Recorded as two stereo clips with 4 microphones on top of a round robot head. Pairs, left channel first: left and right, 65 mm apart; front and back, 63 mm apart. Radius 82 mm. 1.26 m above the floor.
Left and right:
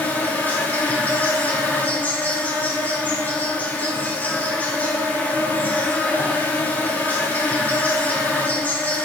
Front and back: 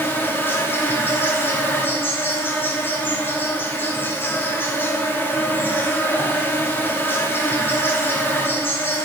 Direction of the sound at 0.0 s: 40° left.